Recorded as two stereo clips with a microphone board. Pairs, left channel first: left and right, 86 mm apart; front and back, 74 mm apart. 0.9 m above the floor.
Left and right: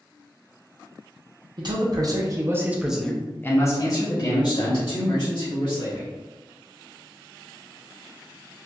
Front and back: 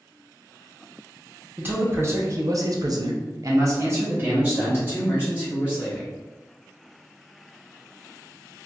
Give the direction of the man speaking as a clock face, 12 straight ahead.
4 o'clock.